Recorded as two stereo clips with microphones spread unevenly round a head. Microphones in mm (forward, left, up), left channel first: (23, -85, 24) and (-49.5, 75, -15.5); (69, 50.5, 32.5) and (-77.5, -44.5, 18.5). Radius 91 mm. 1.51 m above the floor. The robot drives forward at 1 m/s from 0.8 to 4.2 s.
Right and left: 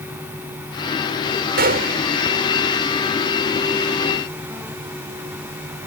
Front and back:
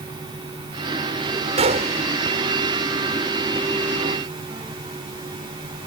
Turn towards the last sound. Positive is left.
turn(degrees=165)